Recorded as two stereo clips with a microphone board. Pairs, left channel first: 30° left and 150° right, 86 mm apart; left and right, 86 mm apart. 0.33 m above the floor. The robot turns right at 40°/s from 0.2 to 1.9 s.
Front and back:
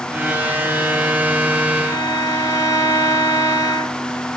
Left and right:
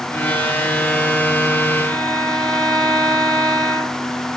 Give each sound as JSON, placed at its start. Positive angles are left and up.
{"t": 1.8, "sound": "a violin", "azimuth_deg": 15, "distance_m": 1.3}